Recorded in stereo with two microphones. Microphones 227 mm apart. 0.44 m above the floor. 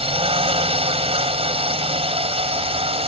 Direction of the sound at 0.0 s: 25° right (ahead or behind).